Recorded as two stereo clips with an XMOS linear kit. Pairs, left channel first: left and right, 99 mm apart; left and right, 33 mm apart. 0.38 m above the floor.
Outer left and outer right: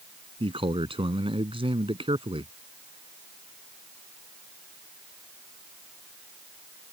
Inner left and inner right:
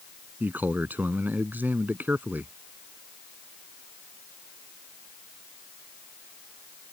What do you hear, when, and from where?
0.4 s a man speaking: 65° right (ahead or behind)